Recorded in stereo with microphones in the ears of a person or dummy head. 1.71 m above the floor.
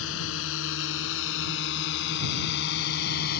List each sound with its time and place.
0.0 s a drone: 80° left; by 3.4 s 55° left (ahead or behind)